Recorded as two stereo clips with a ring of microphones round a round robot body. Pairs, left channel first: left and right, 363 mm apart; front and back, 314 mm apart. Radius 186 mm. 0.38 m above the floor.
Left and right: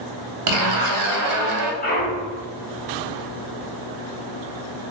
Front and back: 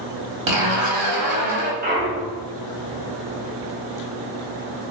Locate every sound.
0.5 s a zipper: 135° right, 0.5 m
1.8 s a clunk: 140° left, 1.1 m